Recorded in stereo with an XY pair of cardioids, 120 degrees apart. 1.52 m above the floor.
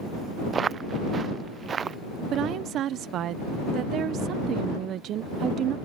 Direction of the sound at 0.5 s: 35° right.